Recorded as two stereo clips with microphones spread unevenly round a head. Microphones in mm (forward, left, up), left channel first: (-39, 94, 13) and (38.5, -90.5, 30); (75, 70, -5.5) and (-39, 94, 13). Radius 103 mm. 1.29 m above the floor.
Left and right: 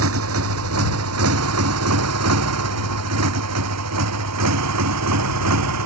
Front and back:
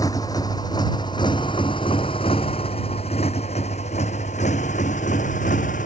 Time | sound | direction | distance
0.0 | a motorcycle | 90° right | ?